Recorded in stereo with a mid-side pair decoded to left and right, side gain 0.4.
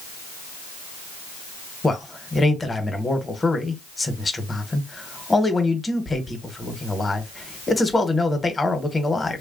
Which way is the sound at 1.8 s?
30° left.